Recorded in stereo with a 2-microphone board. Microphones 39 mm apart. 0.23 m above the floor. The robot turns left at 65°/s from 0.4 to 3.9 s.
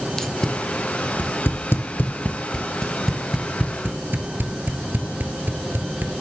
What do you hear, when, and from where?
0.2 s tape being pulled: 10° left (ahead or behind), 1.2 m; by 6.1 s 55° right (ahead or behind), 1.2 m